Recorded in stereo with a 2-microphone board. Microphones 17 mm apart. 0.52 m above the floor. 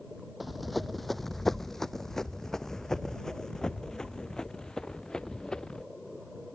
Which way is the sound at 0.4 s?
Centre (ahead or behind).